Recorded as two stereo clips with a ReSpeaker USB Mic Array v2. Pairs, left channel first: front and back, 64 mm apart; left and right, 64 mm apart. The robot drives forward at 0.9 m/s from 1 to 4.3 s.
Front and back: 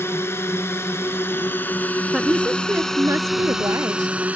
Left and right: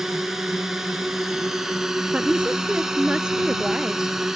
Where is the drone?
10° right; by 4.4 s 160° right.